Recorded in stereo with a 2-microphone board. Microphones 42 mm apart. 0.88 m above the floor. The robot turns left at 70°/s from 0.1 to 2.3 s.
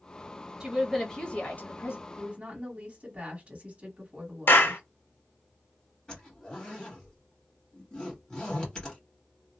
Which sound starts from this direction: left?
A clap, at 4.5 s.